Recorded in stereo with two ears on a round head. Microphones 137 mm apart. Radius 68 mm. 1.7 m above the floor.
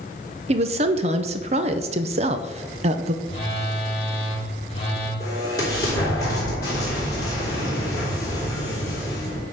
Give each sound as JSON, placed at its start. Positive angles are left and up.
{"t": 0.5, "sound": "a woman speaking", "side_deg": -40, "distance_m": 0.7}
{"t": 3.2, "sound": "a phone buzzing", "side_deg": 35, "distance_m": 2.5}
{"t": 5.2, "sound": "an explosion", "side_deg": 25, "distance_m": 4.0}